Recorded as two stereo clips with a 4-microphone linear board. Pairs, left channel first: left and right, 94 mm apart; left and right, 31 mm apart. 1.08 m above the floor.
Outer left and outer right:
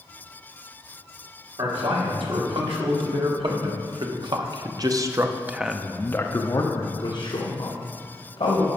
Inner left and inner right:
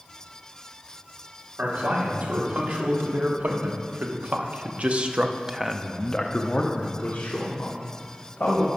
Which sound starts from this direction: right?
A man speaking, at 1.6 s.